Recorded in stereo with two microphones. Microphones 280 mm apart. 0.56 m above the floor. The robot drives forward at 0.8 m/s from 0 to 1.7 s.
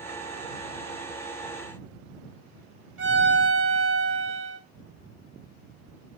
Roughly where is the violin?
Right.